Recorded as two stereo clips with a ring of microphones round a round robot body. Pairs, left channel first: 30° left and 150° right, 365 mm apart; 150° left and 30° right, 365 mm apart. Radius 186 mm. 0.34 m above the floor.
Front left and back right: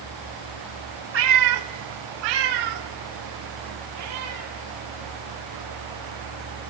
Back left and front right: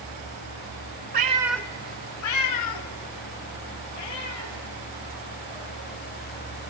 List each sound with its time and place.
1.1 s a cat meowing: 95° right, 0.5 m; by 6.7 s 155° left, 3 m